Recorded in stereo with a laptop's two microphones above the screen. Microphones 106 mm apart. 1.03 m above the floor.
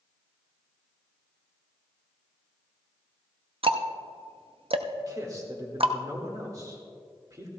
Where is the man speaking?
35° right (ahead or behind), 1.9 m.